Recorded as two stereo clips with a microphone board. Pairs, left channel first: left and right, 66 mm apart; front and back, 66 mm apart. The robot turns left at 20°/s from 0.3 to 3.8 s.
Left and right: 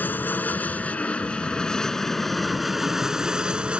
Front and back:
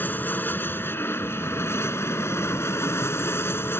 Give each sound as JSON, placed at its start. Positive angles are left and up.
{"t": 0.0, "sound": "an aircraft", "azimuth_deg": 45}